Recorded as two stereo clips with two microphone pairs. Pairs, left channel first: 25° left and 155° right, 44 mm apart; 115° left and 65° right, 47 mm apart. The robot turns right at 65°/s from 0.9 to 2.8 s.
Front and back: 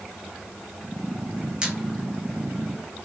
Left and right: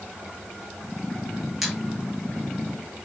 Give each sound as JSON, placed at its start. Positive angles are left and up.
{"t": 1.6, "sound": "a squeak", "azimuth_deg": -135, "distance_m": 0.7}